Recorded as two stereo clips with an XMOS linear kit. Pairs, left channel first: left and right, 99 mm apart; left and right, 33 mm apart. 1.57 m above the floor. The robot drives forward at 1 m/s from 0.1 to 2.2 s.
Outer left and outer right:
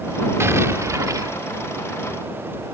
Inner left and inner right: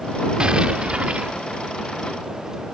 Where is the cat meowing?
No cat meowing in this recording.